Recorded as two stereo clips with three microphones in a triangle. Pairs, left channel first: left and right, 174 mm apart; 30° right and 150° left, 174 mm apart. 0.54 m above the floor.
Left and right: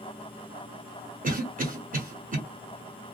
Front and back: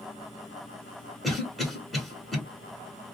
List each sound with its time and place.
1.2 s a cough: 120° right, 1.4 m